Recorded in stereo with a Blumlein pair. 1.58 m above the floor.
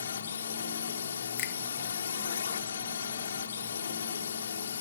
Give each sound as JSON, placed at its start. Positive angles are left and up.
{"t": 0.0, "sound": "a drone", "azimuth_deg": 65}
{"t": 1.4, "sound": "a finger snap", "azimuth_deg": 40}